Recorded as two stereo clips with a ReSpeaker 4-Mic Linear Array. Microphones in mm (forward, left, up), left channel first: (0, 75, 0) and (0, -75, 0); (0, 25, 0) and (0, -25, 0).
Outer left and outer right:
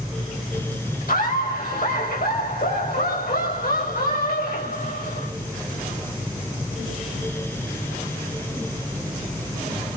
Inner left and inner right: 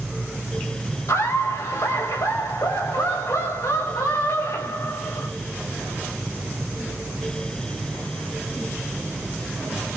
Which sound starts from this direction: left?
Laughter, at 1.1 s.